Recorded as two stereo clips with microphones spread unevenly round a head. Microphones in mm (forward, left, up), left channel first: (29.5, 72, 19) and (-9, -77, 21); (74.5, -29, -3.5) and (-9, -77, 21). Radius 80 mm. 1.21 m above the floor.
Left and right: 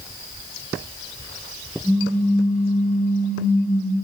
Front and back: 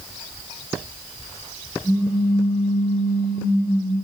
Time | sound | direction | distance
1.8 | a pop | 25° right | 2.0 m